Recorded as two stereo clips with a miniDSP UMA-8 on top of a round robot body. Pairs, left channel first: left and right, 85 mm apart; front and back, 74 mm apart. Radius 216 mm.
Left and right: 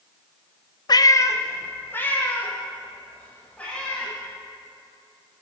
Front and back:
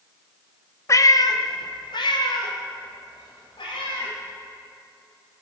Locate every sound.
0.9 s a cat meowing: 50° left, 0.6 m; by 4.1 s 15° left, 3.5 m